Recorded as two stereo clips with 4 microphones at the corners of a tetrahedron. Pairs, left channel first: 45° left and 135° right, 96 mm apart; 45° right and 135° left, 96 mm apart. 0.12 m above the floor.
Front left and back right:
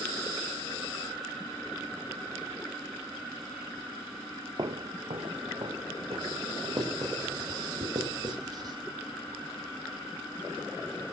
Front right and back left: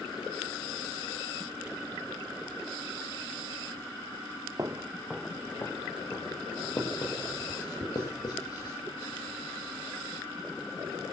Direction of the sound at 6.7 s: 90° right.